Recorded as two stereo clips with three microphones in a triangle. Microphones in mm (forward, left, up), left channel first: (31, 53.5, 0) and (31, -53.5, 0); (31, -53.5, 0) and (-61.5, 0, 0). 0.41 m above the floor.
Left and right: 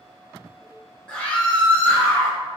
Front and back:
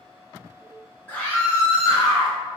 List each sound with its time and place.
1.1 s a scream: 25° left, 0.8 m; by 2.4 s 15° left, 1.3 m